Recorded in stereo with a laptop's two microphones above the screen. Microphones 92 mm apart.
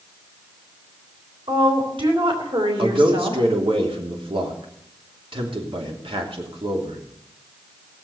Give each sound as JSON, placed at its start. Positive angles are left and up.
{"t": 1.5, "sound": "a woman speaking", "side_deg": -70, "distance_m": 3.5}
{"t": 2.8, "sound": "a man speaking", "side_deg": -75, "distance_m": 3.0}